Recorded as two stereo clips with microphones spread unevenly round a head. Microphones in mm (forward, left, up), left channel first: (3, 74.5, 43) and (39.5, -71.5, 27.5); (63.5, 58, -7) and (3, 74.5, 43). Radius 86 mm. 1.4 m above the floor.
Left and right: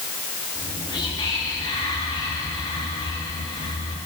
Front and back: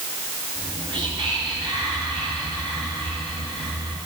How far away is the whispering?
About 3 m.